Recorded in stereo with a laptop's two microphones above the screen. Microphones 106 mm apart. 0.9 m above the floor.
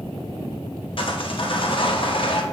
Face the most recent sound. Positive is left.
turn(degrees=55)  # may be behind; listen again after turning